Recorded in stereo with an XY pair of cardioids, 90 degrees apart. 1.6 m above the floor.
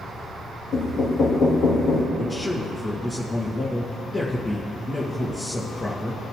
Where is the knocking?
70° left, 1.9 m.